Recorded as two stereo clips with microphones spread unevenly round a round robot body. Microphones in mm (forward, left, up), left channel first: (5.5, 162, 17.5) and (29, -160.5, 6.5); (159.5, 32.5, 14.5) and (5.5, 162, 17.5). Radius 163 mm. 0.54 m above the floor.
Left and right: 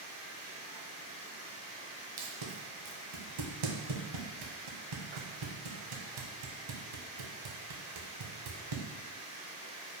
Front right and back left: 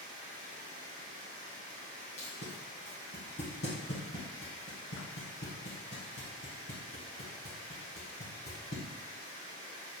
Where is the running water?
165° left, 1.1 m.